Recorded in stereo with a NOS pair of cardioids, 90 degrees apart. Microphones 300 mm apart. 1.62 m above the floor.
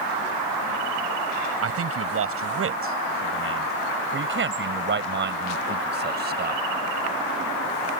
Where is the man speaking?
50° right; by 6.6 s 30° right.